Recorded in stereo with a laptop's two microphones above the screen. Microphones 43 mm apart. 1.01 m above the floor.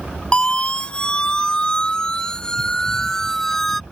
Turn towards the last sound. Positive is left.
turn(degrees=5)  # may be behind; listen again after turning